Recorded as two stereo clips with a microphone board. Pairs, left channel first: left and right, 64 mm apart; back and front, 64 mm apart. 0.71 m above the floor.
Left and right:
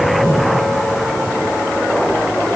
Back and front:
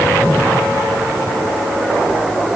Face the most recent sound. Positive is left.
No sound to turn to.